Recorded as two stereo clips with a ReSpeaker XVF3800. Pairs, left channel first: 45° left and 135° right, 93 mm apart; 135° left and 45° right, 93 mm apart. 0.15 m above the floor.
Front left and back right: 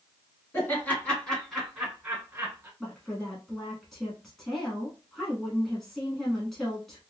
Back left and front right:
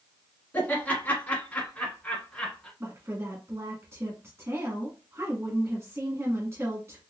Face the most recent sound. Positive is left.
turn(degrees=-40)